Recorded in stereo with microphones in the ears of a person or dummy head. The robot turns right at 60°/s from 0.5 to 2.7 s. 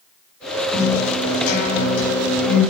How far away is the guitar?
About 2.5 m.